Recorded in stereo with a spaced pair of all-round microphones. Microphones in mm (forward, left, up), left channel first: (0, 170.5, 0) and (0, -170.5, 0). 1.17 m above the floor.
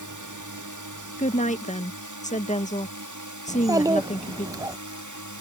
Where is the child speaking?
10° right (ahead or behind).